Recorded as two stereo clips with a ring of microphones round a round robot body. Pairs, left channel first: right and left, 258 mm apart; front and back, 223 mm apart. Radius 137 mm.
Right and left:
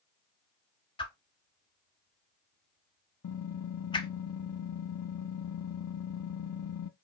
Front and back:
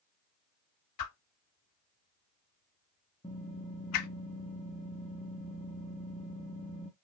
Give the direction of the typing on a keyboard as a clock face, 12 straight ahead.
2 o'clock.